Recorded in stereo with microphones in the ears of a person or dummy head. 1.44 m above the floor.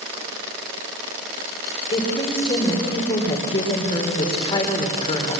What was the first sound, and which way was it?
A woman speaking, 30° left (ahead or behind).